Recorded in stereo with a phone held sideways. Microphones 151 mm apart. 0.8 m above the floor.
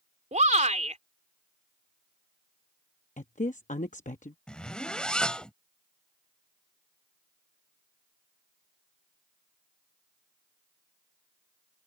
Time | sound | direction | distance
0.3 | a shout | 50° right (ahead or behind) | ?
3.2 | a woman speaking | 55° left (ahead or behind) | ?
4.5 | a zipper | 5° left (ahead or behind) | ?